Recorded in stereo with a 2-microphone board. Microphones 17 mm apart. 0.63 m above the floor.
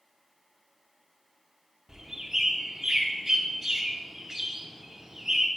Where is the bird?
30° right (ahead or behind), 0.9 m.